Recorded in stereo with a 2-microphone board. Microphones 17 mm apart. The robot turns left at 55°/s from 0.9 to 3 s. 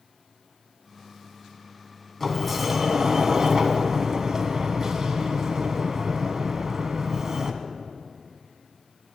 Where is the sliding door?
15° left, 1.4 m; by 7.6 s 30° right, 1.4 m.